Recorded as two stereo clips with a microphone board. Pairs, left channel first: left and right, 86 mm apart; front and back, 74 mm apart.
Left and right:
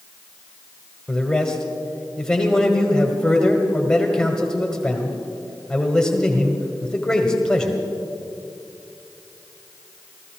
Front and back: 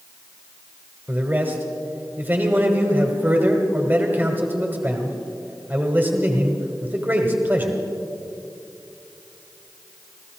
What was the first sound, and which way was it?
A man speaking, 165° left.